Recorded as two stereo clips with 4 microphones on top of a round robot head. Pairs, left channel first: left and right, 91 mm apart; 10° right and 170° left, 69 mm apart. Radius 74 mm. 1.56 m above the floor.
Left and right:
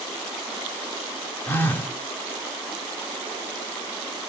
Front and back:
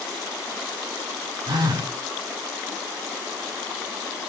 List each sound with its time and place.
1.5 s a phone buzzing: 155° left, 3 m